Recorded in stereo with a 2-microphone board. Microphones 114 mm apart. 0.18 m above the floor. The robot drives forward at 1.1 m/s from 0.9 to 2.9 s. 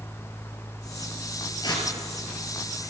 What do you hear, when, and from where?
1.6 s tearing paper: 40° left (ahead or behind), 3.5 m